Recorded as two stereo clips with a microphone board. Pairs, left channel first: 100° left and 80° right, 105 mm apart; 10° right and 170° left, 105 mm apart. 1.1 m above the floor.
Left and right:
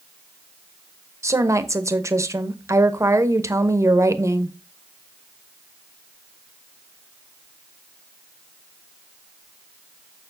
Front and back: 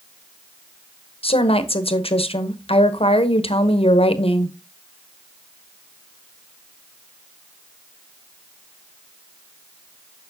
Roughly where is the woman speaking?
Ahead.